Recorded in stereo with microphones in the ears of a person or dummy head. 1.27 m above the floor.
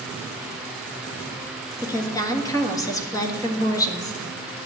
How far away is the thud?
I don't hear a thud.